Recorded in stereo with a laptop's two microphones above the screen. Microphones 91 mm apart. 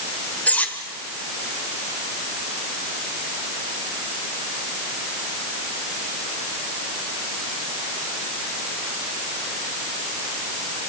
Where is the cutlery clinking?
15° left (ahead or behind), 1.9 m.